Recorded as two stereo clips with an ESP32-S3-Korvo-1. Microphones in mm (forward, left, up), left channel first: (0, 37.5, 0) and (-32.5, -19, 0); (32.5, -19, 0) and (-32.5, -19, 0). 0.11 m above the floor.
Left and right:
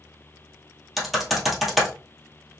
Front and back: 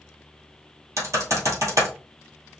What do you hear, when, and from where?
1.0 s typing on a keyboard: 155° left, 1.9 m